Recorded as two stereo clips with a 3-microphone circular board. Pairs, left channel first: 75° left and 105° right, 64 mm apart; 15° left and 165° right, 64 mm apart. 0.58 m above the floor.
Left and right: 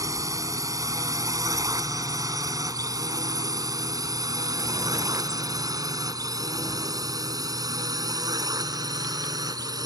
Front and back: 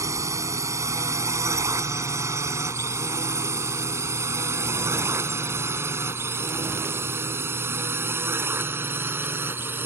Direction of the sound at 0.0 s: 130° right.